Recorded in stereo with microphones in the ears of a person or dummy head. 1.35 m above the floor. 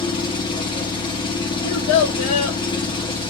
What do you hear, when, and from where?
0.0 s an engine running: 25° left (ahead or behind), 1.1 m
1.6 s a child speaking: 45° left (ahead or behind), 0.9 m